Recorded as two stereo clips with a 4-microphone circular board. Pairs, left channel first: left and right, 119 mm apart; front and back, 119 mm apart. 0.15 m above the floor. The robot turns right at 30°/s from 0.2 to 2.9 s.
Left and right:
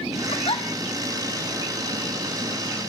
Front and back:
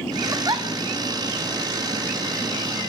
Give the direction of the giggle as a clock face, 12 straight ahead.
8 o'clock.